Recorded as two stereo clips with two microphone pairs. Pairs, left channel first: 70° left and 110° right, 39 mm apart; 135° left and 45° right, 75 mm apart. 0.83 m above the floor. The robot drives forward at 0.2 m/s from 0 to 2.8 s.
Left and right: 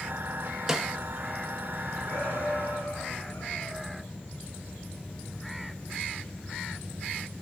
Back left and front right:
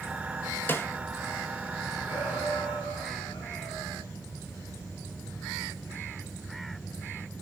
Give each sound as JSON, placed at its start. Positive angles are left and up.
{"t": 0.7, "sound": "a snare drum", "azimuth_deg": -175, "distance_m": 1.0}
{"t": 2.0, "sound": "a shout", "azimuth_deg": 130, "distance_m": 8.5}